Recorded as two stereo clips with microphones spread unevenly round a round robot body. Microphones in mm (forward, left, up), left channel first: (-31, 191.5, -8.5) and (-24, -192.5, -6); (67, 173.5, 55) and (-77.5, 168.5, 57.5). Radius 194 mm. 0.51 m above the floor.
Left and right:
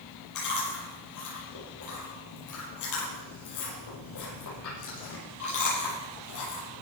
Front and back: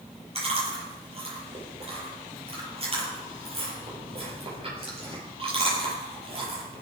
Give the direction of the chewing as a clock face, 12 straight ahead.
7 o'clock.